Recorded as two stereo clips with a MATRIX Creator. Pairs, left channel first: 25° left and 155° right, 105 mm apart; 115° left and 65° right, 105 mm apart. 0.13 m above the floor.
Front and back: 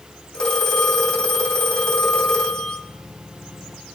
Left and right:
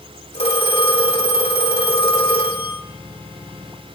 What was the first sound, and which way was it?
A phone ringing, 105° left.